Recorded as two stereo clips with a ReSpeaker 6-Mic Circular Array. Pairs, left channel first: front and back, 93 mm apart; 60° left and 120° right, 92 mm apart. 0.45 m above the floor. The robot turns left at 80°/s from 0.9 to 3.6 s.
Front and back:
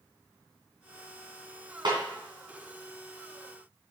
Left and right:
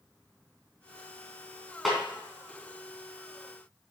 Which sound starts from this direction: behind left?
A snare drum, at 1.9 s.